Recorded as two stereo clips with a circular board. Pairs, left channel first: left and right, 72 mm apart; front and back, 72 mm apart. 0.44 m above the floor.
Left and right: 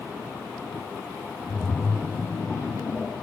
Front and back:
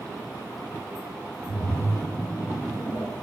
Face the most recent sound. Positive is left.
turn(degrees=-5)